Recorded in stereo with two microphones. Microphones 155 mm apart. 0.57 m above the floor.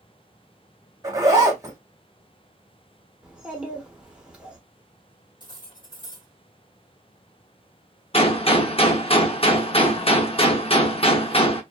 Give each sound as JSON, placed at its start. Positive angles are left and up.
{"t": 1.0, "sound": "a zipper", "side_deg": -20, "distance_m": 1.1}
{"t": 3.2, "sound": "a child speaking", "side_deg": -5, "distance_m": 1.2}
{"t": 5.4, "sound": "cutlery clinking", "side_deg": 30, "distance_m": 1.5}
{"t": 8.1, "sound": "a gunshot", "side_deg": 40, "distance_m": 0.5}